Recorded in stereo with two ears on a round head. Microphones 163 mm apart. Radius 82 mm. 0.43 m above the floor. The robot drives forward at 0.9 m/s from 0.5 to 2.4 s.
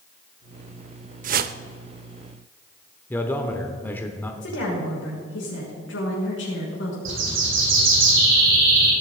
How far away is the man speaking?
About 1.0 m.